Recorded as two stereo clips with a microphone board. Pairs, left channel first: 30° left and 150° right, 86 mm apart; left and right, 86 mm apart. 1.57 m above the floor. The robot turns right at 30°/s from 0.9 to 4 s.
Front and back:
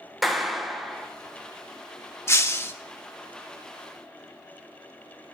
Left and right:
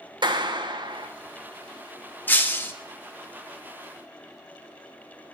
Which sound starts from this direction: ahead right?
A clap, at 0.2 s.